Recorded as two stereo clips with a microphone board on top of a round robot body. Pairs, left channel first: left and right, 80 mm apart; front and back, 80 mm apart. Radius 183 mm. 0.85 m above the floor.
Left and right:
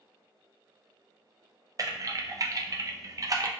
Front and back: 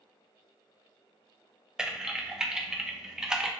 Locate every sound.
1.8 s typing on a keyboard: 100° right, 0.5 m